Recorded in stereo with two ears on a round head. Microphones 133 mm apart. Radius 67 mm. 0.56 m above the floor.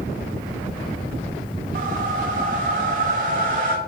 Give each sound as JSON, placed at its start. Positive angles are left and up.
{"t": 1.8, "sound": "a whoosh", "side_deg": -60, "distance_m": 1.3}